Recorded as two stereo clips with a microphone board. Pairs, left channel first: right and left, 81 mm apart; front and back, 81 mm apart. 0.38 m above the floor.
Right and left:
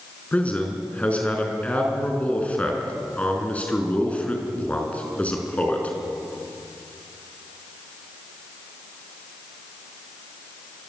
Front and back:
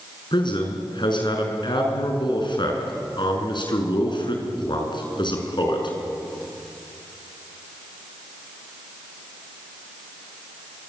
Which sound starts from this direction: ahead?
A man speaking, at 0.3 s.